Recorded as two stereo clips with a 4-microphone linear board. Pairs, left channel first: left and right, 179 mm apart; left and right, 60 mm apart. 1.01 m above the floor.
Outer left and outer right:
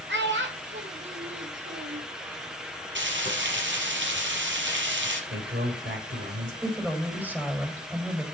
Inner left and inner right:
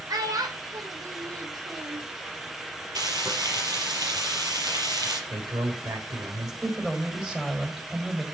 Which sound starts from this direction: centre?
A woman speaking, at 6.6 s.